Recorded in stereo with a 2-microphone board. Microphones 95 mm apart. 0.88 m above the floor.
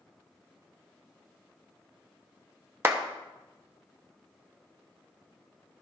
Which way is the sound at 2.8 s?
25° right (ahead or behind).